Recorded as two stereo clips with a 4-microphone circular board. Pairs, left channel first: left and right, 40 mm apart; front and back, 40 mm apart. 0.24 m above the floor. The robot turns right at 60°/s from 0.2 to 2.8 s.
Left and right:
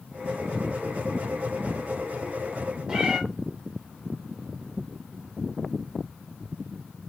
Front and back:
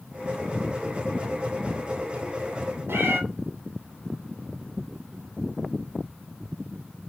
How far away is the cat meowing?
About 1.4 m.